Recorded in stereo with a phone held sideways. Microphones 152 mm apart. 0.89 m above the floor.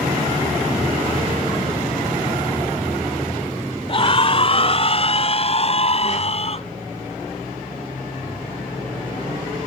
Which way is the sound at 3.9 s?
40° left (ahead or behind).